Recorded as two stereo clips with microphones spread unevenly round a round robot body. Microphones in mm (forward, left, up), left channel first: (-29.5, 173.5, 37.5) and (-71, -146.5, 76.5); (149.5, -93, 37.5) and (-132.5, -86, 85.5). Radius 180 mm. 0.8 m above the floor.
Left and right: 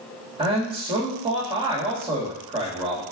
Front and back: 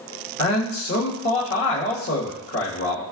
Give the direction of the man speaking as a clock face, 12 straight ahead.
1 o'clock.